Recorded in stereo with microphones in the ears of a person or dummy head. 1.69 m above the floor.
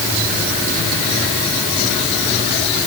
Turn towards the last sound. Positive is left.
No sound to turn to.